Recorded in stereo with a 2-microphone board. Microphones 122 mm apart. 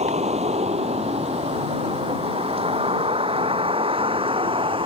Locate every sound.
0.0 s a vehicle: 65° right (ahead or behind); by 4.9 s 45° right (ahead or behind)